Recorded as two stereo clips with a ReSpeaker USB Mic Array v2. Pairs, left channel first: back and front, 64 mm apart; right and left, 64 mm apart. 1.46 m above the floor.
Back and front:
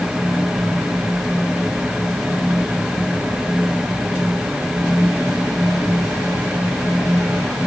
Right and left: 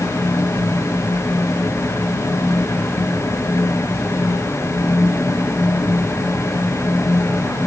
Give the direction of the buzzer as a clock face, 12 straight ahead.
No buzzer in this recording.